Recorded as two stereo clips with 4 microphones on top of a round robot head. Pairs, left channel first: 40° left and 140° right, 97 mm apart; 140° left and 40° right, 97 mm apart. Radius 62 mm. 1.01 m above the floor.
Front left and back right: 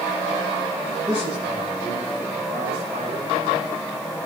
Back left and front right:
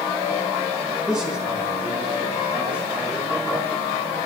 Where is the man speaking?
120° right, 8.5 m; by 3.4 s 115° right, 5.5 m.